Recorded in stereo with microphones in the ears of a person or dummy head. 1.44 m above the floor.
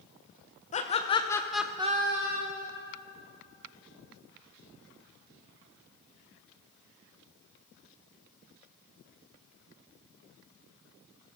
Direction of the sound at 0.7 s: 30° left (ahead or behind).